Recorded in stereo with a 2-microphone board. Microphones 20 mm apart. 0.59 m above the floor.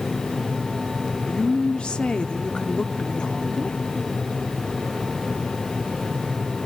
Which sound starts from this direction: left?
A woman speaking, at 1.3 s.